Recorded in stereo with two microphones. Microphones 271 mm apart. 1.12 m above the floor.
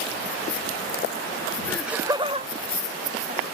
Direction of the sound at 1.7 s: 10° left (ahead or behind).